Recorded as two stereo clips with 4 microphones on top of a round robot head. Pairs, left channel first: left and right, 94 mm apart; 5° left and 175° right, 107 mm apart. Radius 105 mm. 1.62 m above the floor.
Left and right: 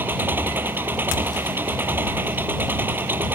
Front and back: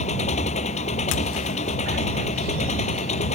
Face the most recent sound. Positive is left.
turn(degrees=-20)